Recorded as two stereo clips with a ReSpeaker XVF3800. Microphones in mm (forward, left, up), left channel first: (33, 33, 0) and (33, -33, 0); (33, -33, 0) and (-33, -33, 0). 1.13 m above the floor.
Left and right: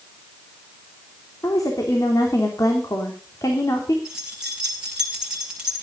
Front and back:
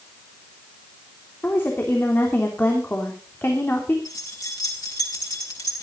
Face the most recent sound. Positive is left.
turn(degrees=-10)